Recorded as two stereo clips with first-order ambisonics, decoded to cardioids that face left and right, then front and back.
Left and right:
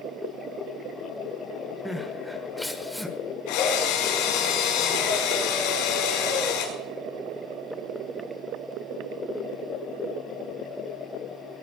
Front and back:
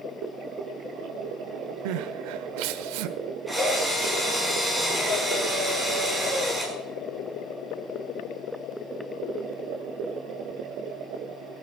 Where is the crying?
Straight behind, 1.1 m.